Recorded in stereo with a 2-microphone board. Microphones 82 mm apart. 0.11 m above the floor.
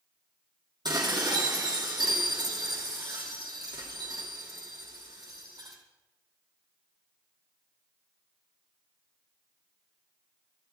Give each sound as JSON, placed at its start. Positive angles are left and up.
{"t": 0.8, "sound": "dishes clattering", "side_deg": -65, "distance_m": 2.5}